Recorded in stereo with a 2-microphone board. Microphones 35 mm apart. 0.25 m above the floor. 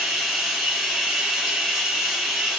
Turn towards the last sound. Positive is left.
turn(degrees=-10)  # may be behind; listen again after turning